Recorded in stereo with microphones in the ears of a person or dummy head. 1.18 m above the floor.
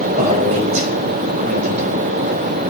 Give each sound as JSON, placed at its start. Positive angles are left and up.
{"t": 0.2, "sound": "a man speaking", "side_deg": -40, "distance_m": 5.0}